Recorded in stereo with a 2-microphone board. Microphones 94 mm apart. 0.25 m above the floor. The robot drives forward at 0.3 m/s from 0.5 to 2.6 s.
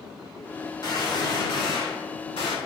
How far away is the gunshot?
About 0.9 m.